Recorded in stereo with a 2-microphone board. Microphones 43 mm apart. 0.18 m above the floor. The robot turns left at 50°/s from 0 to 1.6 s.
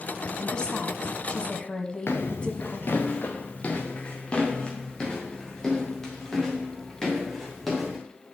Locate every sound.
0.4 s a woman speaking: 20° left (ahead or behind), 1.3 m; by 3.1 s 25° left (ahead or behind), 1.3 m
2.1 s footsteps: 60° left (ahead or behind), 1.4 m; by 8.0 s 5° left (ahead or behind), 4.5 m